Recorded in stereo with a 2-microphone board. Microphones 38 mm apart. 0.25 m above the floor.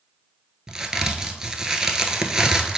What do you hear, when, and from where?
0.7 s a crack: 15° right (ahead or behind), 0.7 m